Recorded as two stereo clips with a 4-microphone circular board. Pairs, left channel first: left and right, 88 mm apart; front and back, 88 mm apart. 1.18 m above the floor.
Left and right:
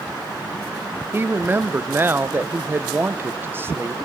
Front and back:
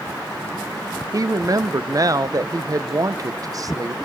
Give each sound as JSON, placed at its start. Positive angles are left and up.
{"t": 1.1, "sound": "a woman speaking", "azimuth_deg": -150, "distance_m": 0.7}